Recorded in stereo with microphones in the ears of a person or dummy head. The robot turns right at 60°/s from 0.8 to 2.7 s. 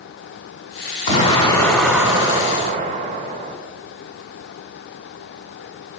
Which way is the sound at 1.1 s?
135° left.